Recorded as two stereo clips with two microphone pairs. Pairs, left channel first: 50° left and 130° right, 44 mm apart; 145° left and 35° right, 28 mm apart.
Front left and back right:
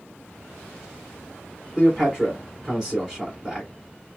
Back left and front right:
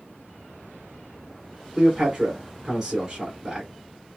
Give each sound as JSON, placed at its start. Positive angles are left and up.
{"t": 1.8, "sound": "a man speaking", "azimuth_deg": -80, "distance_m": 1.7}